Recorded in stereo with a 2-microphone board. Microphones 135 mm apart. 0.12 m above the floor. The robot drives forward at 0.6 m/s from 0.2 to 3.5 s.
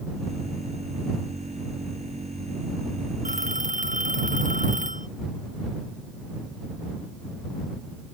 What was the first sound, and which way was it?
A phone ringing, 75° right (ahead or behind).